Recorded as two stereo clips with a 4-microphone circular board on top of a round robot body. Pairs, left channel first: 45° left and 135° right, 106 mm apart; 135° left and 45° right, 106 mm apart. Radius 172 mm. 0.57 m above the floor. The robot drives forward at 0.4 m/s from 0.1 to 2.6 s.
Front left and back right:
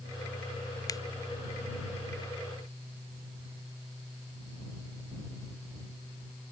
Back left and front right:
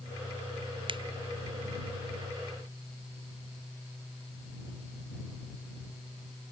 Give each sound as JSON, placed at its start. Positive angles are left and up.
{"t": 0.9, "sound": "a finger snap", "azimuth_deg": -10}